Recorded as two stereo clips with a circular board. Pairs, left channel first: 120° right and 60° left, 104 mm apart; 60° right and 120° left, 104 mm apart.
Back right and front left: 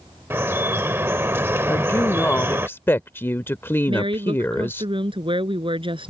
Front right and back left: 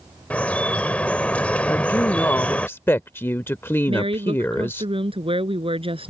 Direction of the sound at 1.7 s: 90° right.